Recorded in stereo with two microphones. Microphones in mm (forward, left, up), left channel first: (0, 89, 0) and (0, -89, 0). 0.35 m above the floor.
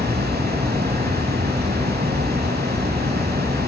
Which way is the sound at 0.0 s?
60° right (ahead or behind).